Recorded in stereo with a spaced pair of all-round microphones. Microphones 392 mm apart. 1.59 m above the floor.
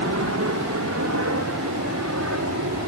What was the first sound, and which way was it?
A helicopter, 40° right (ahead or behind).